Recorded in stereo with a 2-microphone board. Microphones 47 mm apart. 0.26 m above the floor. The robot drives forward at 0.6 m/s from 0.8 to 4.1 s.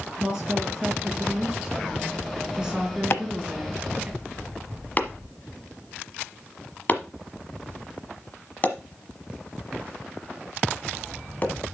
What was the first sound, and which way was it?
A woman speaking, 10° right (ahead or behind).